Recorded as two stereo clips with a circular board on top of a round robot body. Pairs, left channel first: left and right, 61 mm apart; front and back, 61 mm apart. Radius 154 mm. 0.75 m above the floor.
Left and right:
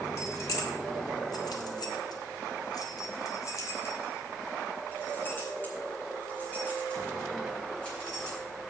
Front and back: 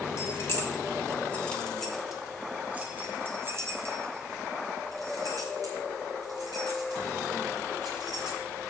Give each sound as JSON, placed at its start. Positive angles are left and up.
{"t": 0.2, "sound": "keys jangling", "azimuth_deg": 50, "distance_m": 2.0}